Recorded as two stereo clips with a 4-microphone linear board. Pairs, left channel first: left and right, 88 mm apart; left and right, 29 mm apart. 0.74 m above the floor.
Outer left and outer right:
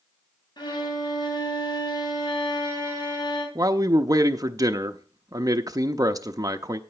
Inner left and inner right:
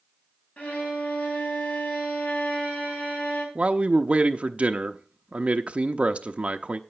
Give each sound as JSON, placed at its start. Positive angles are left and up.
{"t": 0.6, "sound": "a violin", "side_deg": 55, "distance_m": 4.0}
{"t": 3.5, "sound": "a man speaking", "side_deg": -40, "distance_m": 0.6}